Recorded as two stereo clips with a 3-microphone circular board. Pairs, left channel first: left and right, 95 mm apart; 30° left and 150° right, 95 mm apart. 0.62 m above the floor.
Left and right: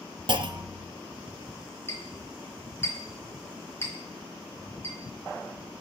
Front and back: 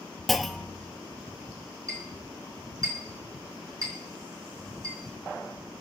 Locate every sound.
0.3 s a clunk: 60° right, 0.6 m
1.9 s a clink: 155° left, 4.5 m